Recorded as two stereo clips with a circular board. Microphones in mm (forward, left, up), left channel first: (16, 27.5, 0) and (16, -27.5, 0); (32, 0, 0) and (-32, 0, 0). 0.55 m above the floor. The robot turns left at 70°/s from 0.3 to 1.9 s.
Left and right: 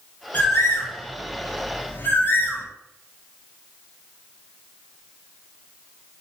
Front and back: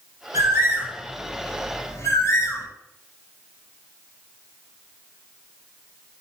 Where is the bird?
150° left, 1.2 m; by 2.7 s 40° left, 1.2 m.